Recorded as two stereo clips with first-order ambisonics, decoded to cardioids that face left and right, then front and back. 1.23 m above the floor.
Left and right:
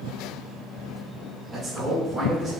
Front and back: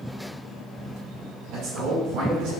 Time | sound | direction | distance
1.5 | a man speaking | 160° right | 1.8 m